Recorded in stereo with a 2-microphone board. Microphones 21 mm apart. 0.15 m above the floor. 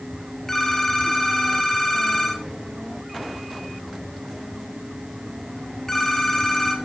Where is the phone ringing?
15° left (ahead or behind), 1.9 m.